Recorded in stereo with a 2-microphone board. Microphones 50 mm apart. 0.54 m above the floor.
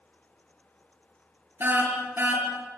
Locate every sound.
1.6 s a car horn: 45° right (ahead or behind), 6 m